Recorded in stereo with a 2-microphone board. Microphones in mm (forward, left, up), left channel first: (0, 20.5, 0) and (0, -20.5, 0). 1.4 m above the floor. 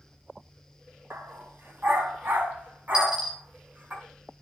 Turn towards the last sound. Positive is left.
turn(degrees=-25)  # may be behind; listen again after turning